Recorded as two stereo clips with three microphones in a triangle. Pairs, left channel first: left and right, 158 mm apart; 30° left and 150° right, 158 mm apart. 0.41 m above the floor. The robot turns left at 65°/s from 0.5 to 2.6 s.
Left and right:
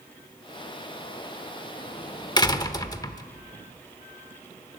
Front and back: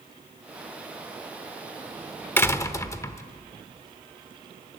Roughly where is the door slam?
Left.